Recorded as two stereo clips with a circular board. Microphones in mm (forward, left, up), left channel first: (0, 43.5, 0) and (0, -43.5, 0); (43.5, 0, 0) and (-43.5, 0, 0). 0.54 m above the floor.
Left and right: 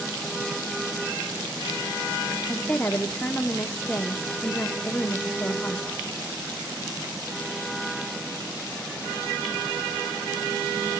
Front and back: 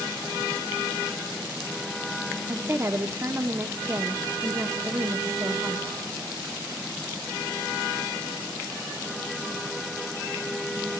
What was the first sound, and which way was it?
A woman speaking, 150° left.